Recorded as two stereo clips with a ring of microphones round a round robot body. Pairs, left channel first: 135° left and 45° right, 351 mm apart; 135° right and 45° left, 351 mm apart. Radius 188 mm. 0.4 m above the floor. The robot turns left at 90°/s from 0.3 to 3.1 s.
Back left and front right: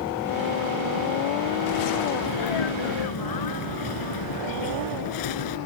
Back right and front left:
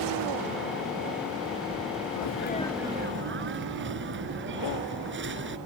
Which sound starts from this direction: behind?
A sneeze, at 2.1 s.